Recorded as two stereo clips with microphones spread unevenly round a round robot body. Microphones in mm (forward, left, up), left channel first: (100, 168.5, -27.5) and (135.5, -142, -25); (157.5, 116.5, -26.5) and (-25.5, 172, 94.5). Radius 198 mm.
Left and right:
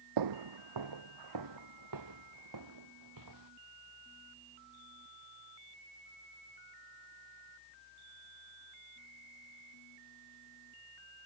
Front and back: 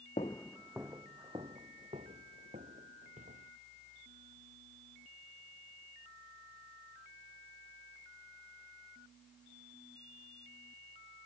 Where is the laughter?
I don't hear laughter.